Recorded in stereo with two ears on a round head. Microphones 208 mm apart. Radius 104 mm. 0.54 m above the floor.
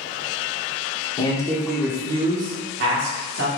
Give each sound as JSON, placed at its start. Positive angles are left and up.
{"t": 1.2, "sound": "a man speaking", "side_deg": 20, "distance_m": 1.0}